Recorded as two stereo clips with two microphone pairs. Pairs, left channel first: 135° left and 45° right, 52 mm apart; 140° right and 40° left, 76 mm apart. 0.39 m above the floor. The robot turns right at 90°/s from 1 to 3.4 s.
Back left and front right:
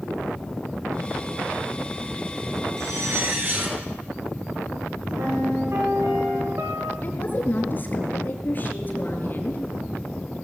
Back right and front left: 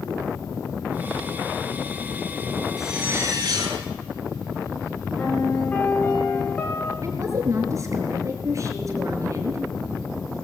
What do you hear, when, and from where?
2.8 s a zipper: 50° right, 6 m; by 3.8 s 5° left, 6 m
5.2 s a piano: 75° right, 6 m
7.0 s a woman speaking: 85° left, 4 m